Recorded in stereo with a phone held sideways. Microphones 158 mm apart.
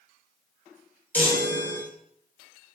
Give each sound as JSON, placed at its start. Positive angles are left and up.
{"t": 1.1, "sound": "a chime", "side_deg": 10, "distance_m": 3.0}